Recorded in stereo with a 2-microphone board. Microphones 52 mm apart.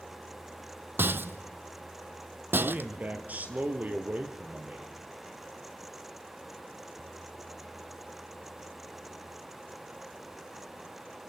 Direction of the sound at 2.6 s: 35° right (ahead or behind).